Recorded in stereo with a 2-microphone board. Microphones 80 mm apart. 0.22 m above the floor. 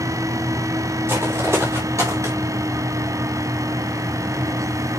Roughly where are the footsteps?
Right.